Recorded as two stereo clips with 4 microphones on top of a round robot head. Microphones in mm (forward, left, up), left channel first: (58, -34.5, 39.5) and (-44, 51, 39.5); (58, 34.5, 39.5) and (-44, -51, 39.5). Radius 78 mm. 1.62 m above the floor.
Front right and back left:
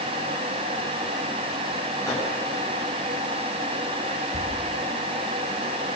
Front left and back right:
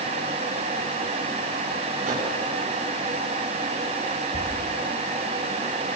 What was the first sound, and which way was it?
A microwave, 110° right.